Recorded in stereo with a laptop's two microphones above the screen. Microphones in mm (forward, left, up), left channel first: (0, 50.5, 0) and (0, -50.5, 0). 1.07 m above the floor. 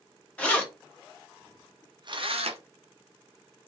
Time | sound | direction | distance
0.4 | keys jangling | 10° left (ahead or behind) | 1.6 m